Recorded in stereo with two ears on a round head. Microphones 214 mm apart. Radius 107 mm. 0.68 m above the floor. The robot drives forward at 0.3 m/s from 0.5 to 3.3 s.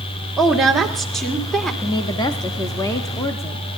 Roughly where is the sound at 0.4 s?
Centre.